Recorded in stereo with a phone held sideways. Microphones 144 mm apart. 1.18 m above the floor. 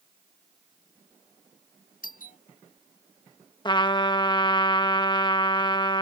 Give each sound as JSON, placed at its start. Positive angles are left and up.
{"t": 2.0, "sound": "a doorbell", "side_deg": 75}
{"t": 3.6, "sound": "a trumpet", "side_deg": 30}